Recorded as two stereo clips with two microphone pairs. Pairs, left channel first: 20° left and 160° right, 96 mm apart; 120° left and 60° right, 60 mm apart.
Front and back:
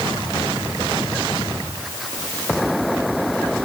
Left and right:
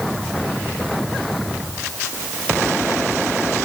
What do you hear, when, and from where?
Only background noise.